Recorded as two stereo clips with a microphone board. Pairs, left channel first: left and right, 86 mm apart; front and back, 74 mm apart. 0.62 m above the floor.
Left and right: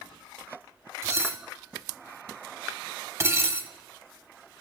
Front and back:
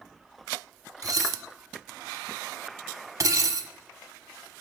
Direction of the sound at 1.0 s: 140° right.